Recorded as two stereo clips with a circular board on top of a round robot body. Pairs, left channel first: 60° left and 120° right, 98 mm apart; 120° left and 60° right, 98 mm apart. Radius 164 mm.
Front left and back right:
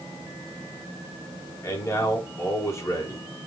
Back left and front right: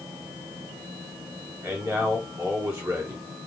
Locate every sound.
1.6 s a man speaking: straight ahead, 3 m